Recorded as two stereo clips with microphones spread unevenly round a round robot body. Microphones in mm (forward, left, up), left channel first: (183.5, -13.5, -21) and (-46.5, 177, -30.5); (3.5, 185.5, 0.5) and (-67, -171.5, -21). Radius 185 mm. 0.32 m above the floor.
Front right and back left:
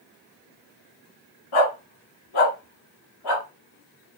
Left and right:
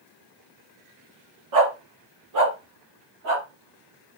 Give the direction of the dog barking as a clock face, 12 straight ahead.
2 o'clock.